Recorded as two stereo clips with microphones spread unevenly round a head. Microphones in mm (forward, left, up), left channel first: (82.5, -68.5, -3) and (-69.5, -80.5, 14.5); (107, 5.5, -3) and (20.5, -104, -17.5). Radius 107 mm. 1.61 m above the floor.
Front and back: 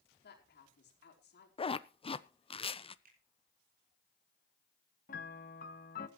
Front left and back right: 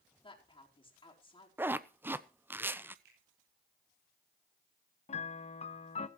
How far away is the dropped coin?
No dropped coin in this recording.